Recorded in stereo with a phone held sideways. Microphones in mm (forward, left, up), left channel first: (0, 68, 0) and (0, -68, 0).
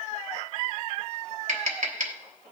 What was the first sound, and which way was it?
Tapping, 60° right (ahead or behind).